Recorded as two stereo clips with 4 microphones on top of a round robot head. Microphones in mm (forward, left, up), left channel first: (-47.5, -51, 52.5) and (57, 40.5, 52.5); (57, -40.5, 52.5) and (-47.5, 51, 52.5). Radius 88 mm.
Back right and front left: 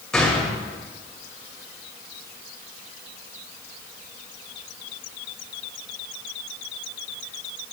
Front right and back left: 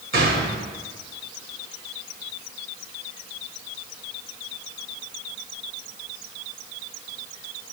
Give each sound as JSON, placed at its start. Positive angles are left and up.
{"t": 0.1, "sound": "a gunshot", "azimuth_deg": 135, "distance_m": 2.5}